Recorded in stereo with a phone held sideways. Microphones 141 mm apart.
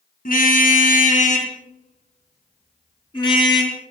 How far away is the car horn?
About 3.5 m.